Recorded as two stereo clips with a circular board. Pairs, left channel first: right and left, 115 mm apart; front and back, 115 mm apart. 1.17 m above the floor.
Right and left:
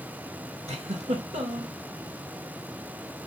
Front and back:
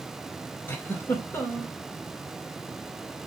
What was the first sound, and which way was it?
A giggle, 70° left.